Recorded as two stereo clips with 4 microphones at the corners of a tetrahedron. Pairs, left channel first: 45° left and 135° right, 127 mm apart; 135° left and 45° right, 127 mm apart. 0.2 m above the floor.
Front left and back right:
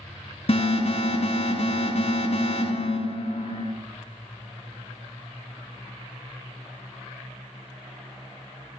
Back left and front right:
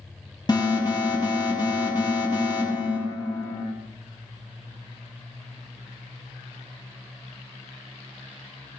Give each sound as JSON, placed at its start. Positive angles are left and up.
{"t": 0.5, "sound": "an alarm", "azimuth_deg": 80, "distance_m": 5.0}